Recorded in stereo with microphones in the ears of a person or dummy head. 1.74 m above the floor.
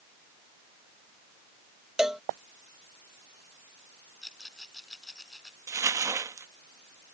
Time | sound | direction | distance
2.0 | a cowbell | centre (ahead or behind) | ?
4.2 | a rattle | centre (ahead or behind) | ?
5.7 | crumpling | 15° right (ahead or behind) | ?